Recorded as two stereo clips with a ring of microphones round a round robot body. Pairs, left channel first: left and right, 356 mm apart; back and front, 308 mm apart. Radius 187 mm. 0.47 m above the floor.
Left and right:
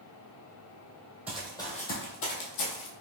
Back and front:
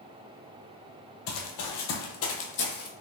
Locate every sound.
1.3 s running footsteps: 175° right, 0.8 m; by 2.9 s 120° left, 1.1 m